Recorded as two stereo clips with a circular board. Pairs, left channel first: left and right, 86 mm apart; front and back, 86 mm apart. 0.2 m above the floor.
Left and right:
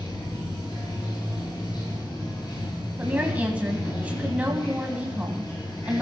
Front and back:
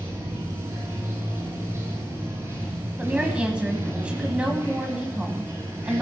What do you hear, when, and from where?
0.0 s running water: 120° left, 7.5 m
3.0 s a woman speaking: 130° right, 1.4 m